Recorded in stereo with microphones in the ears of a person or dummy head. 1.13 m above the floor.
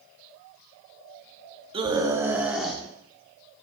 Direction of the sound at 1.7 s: 30° right (ahead or behind).